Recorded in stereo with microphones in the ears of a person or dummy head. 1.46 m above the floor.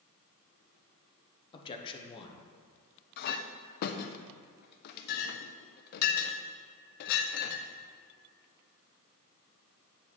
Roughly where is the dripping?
I don't hear dripping.